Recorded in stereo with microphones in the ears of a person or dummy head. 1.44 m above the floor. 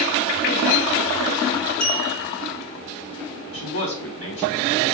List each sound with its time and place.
1.8 s a clink: 45° left (ahead or behind), 3.5 m
3.5 s a man speaking: 75° left (ahead or behind), 3.5 m